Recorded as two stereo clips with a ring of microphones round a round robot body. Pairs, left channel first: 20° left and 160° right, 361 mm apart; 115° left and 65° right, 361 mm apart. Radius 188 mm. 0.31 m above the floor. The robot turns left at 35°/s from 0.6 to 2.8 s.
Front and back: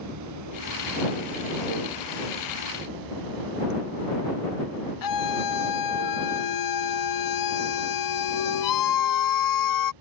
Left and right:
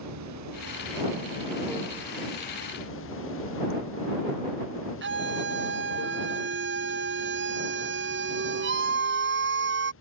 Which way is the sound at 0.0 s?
115° right.